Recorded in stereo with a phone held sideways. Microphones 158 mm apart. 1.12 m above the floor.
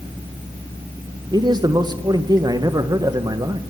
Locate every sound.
1.3 s a man speaking: 25° right (ahead or behind), 0.9 m